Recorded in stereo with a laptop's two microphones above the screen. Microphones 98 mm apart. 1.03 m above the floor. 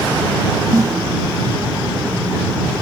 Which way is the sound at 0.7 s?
35° right (ahead or behind).